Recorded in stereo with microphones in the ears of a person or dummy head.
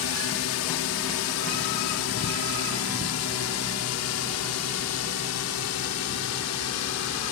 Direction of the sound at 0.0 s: 60° left (ahead or behind).